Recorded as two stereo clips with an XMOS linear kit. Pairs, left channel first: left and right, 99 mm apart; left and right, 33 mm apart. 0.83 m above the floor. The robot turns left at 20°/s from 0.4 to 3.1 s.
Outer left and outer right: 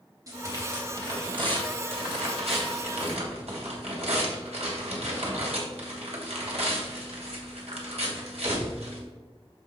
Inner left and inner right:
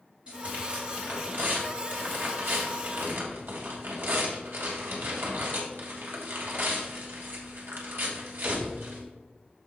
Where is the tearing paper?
35° right, 2.5 m; by 9.0 s 90° right, 2.5 m.